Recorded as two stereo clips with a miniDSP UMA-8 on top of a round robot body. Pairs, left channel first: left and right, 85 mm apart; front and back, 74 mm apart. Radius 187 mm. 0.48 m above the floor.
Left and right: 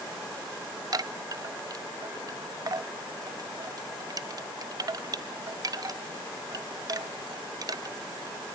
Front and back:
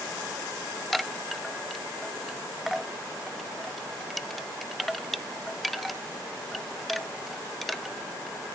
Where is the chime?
90° right, 0.7 m.